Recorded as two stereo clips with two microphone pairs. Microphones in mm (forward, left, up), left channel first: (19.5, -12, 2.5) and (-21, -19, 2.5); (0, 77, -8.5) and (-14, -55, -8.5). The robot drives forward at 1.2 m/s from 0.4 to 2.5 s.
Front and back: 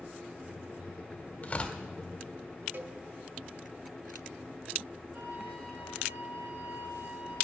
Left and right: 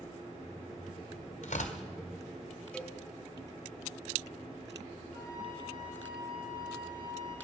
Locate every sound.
1.4 s tearing paper: 60° left, 1.6 m; by 1.8 s 75° left, 1.5 m
2.7 s a cowbell: 165° left, 0.9 m
5.1 s a flute: 145° right, 4.5 m